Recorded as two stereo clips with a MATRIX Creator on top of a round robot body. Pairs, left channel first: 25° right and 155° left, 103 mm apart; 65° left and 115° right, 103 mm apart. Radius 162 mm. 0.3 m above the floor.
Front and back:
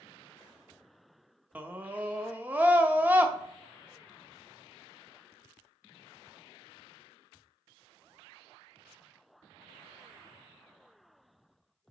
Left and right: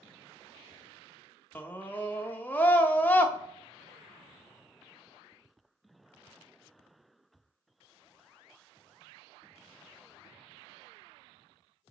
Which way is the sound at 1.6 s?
110° left.